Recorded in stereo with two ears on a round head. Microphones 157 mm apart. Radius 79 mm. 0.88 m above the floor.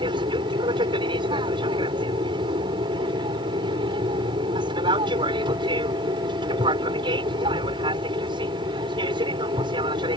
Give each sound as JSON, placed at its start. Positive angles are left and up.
{"t": 0.0, "sound": "an aircraft", "side_deg": -30}